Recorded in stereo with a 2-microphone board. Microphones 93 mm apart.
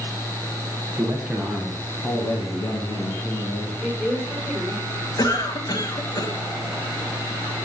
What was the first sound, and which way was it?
A man speaking, 20° right (ahead or behind).